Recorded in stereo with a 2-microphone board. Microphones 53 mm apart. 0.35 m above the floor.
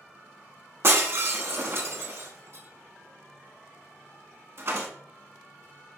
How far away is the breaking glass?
About 0.8 m.